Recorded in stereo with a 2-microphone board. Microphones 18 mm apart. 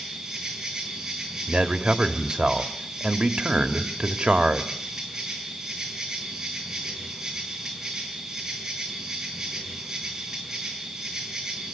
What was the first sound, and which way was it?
An insect, 25° right (ahead or behind).